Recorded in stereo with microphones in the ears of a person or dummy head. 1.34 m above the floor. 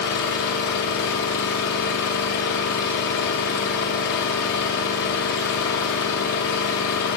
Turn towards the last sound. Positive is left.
turn(degrees=50)  # may be behind; listen again after turning